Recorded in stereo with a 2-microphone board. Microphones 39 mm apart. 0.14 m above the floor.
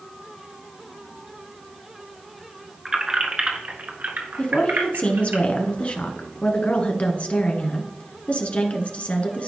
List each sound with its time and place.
2.9 s keys jangling: 10° right (ahead or behind), 1.2 m; by 5.4 s 65° right (ahead or behind), 2 m
4.4 s a woman speaking: 35° left (ahead or behind), 1.3 m